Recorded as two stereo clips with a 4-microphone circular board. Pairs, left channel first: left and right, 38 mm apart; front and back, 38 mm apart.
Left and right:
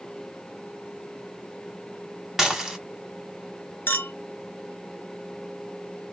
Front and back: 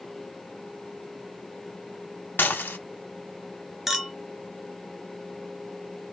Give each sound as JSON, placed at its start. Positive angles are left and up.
{"t": 2.4, "sound": "dishes clattering", "azimuth_deg": -10, "distance_m": 1.5}
{"t": 3.9, "sound": "a clink", "azimuth_deg": 95, "distance_m": 0.8}